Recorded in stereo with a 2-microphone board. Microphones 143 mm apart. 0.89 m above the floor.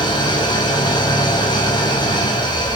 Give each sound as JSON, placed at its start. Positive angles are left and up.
{"t": 0.0, "sound": "an engine running", "side_deg": 30, "distance_m": 5.5}